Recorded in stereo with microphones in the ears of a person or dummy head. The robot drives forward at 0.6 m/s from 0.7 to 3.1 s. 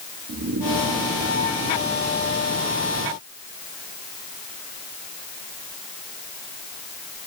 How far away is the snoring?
About 1.0 m.